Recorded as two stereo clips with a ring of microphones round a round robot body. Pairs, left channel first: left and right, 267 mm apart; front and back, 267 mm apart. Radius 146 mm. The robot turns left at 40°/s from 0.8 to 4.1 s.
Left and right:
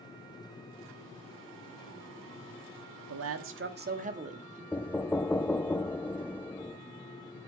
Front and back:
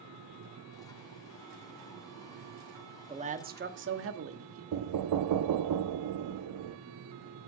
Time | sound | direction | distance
3.1 | a man speaking | 110° right | 1.4 m
4.7 | knocking | 175° left | 0.6 m